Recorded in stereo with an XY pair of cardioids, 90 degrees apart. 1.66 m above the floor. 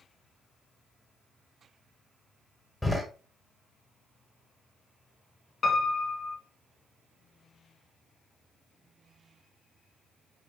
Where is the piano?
45° left, 2.5 m.